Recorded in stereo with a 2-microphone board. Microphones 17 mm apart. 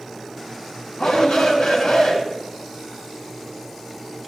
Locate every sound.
1.0 s a shout: 85° left, 5.5 m